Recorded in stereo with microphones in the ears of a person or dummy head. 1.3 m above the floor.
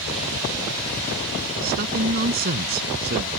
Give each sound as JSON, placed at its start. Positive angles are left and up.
{"t": 1.6, "sound": "a man speaking", "side_deg": -50}